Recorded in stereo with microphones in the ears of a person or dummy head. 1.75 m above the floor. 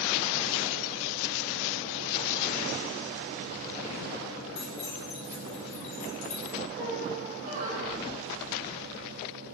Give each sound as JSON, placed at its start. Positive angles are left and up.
{"t": 4.5, "sound": "keys jangling", "side_deg": 30, "distance_m": 4.5}
{"t": 6.8, "sound": "a squeak", "side_deg": -55, "distance_m": 3.5}